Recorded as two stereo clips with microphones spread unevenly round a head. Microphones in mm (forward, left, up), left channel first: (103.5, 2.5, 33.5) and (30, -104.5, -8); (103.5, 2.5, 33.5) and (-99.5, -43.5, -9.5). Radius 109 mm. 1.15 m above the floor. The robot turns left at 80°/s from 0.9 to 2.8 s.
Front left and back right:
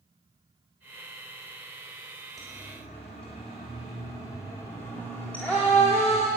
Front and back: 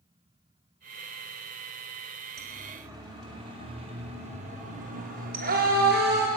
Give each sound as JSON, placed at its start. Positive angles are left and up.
{"t": 2.4, "sound": "a siren", "azimuth_deg": 150, "distance_m": 3.5}